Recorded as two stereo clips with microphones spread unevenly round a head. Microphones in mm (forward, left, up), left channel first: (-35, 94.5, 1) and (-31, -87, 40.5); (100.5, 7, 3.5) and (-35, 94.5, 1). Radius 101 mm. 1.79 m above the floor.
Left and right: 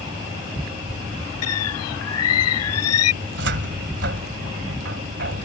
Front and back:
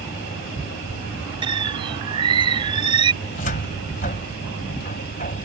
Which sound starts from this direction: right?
A cupboard door, at 3.2 s.